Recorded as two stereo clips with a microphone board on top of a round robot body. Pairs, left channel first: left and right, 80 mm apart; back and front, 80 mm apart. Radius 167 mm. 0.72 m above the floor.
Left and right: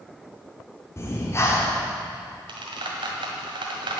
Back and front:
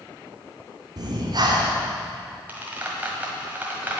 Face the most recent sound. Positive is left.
turn(degrees=-70)